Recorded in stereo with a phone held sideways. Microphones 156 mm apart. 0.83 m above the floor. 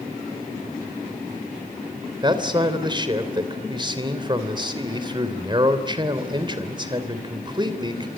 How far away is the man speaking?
About 3 m.